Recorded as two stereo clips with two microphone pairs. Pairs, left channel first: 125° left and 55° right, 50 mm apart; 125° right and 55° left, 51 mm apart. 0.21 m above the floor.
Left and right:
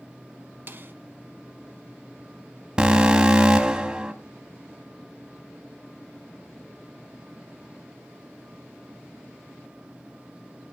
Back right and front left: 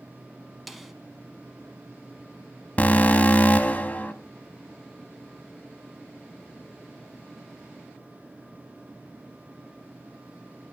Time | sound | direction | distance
0.7 | a snare drum | 30° right | 0.8 m
2.8 | an alarm | 110° right | 0.8 m